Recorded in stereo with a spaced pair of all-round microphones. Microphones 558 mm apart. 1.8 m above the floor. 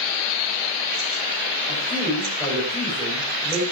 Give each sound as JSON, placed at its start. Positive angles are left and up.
{"t": 1.7, "sound": "a man speaking", "side_deg": 10, "distance_m": 8.5}